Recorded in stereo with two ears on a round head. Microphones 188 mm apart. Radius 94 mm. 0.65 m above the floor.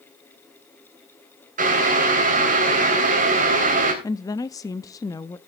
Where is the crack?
No crack in this recording.